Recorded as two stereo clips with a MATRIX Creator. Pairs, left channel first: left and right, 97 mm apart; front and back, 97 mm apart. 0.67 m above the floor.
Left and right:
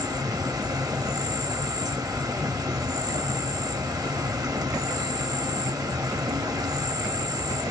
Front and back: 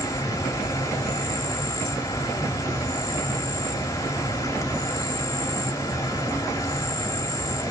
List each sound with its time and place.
0.0 s an insect: 45° right, 1.1 m